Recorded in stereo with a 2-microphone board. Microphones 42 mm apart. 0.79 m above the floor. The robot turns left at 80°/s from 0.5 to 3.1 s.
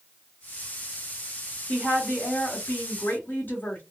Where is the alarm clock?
No alarm clock in this recording.